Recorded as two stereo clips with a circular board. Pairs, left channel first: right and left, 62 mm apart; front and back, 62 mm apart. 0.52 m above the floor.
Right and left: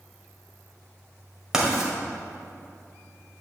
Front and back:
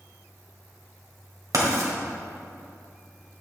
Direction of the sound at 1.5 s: 170° left.